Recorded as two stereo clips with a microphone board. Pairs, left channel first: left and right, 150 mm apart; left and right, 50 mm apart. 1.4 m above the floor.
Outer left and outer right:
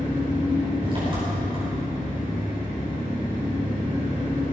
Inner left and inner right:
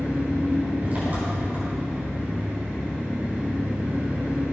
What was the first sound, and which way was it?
An engine running, 35° right (ahead or behind).